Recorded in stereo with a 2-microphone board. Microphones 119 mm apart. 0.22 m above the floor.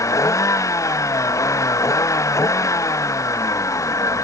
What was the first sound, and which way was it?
A vehicle, 25° left (ahead or behind).